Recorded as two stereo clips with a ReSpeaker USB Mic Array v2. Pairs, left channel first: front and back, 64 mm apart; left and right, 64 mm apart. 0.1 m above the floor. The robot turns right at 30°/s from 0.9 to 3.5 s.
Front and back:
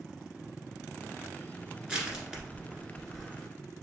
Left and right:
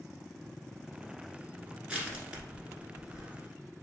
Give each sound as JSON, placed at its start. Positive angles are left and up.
{"t": 1.9, "sound": "crushing", "azimuth_deg": -130, "distance_m": 1.5}